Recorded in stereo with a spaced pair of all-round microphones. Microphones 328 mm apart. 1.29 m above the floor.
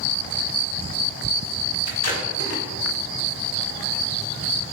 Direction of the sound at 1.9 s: 50° left (ahead or behind).